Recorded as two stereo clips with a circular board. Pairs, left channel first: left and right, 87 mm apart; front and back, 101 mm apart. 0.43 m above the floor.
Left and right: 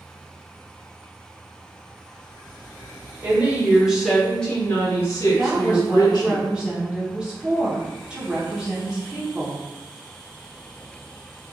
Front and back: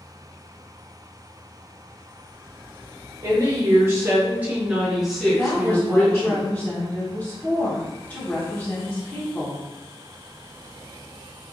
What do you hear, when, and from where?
3.2 s a woman speaking: 145° right, 1.0 m; by 6.4 s 75° left, 1.3 m
5.4 s a woman speaking: 35° right, 0.8 m